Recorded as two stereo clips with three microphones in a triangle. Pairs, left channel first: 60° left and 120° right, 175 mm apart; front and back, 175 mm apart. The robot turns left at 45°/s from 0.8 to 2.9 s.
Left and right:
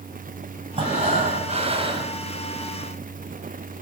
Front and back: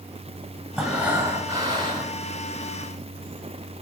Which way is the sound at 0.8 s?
95° right.